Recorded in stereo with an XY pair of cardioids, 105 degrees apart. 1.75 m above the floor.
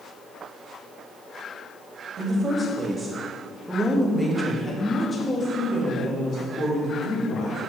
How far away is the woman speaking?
About 3.5 m.